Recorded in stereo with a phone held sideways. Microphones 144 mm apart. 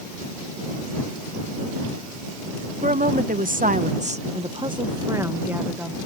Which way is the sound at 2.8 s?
70° right (ahead or behind).